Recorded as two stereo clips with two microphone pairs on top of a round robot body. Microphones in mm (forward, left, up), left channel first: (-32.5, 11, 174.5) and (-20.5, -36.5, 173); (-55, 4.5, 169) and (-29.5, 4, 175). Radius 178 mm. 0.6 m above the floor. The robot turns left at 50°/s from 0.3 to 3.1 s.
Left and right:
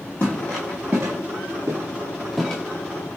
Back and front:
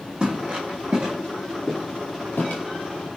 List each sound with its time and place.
0.2 s footsteps: 45° left, 1.2 m; by 2.6 s 170° left, 1.0 m